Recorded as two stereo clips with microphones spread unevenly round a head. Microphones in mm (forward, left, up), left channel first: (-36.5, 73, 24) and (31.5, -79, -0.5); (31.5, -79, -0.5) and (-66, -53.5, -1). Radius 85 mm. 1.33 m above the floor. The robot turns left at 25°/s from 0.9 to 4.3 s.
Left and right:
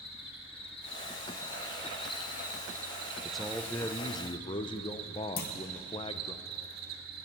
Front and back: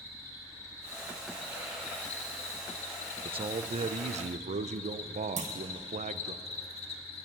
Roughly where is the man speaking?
Behind right.